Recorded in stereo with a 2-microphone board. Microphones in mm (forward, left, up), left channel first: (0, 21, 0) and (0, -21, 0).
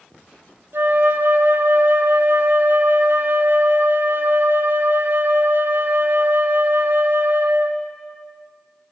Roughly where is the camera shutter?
No camera shutter in this recording.